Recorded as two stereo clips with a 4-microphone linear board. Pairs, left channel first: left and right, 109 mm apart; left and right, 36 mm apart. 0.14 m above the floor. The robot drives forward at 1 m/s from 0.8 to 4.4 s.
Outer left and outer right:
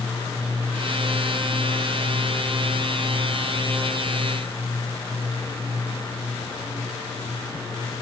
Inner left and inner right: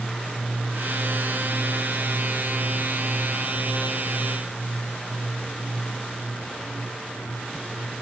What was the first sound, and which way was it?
Only background noise.